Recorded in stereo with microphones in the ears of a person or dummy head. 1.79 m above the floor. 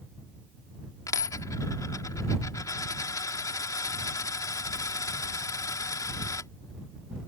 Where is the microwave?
I don't hear a microwave.